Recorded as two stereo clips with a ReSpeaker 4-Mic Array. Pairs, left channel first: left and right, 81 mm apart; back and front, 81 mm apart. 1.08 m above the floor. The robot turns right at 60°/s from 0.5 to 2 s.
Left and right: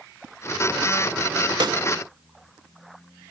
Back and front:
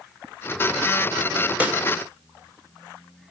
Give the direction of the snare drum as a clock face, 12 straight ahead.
2 o'clock.